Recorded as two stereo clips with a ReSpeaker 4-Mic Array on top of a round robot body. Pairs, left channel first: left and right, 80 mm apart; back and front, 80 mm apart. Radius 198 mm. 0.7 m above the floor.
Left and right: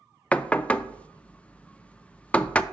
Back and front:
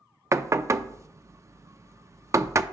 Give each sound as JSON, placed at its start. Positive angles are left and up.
{"t": 0.3, "sound": "knocking", "azimuth_deg": 25, "distance_m": 0.6}